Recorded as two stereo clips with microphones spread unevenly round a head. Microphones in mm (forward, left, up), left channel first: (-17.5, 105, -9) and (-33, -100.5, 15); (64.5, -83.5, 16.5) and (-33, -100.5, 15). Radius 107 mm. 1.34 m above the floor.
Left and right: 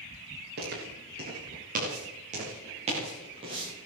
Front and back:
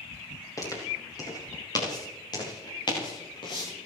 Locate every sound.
0.6 s footsteps: 45° right, 9.5 m; by 3.9 s 25° right, 8.5 m